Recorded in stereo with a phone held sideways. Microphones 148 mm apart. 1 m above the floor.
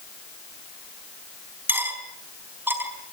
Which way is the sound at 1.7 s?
15° right (ahead or behind).